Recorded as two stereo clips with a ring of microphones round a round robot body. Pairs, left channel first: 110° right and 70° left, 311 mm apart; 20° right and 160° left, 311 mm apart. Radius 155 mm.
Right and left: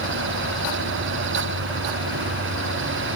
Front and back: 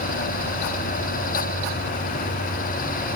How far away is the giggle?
No giggle in this recording.